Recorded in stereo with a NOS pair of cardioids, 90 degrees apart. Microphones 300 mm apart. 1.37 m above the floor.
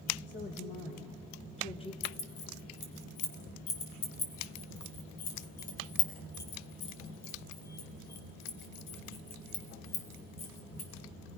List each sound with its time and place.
0.3 s a woman speaking: 40° left, 4 m; by 1.9 s 20° left, 3 m
2.0 s keys jangling: 70° left, 4 m